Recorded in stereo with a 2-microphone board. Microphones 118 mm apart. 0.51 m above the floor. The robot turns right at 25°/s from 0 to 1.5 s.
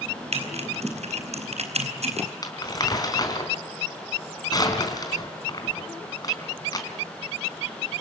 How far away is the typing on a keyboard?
About 4 m.